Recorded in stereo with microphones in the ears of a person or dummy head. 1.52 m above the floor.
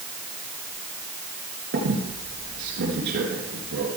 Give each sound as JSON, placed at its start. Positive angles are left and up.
{"t": 1.7, "sound": "a squeak", "side_deg": -60, "distance_m": 3.5}